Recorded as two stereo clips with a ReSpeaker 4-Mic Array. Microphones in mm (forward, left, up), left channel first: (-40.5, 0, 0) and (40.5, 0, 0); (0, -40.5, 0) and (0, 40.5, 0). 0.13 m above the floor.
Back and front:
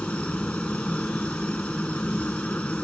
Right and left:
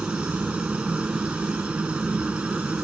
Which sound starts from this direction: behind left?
A helicopter, at 0.0 s.